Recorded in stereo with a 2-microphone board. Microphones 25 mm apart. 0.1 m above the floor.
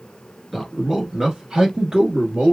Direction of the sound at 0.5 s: Centre (ahead or behind).